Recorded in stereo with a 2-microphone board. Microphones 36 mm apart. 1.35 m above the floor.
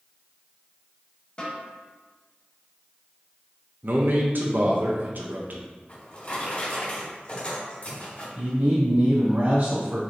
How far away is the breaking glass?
I don't hear breaking glass.